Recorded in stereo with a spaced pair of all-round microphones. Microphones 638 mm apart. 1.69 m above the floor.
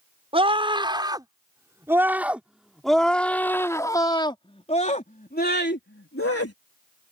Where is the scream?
10° right (ahead or behind); by 6.5 s 25° left (ahead or behind).